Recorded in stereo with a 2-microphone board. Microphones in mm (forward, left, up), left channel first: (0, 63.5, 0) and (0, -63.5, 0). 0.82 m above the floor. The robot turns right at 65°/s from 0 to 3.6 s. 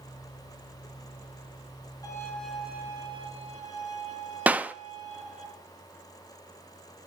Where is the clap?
10° right (ahead or behind), 0.5 m.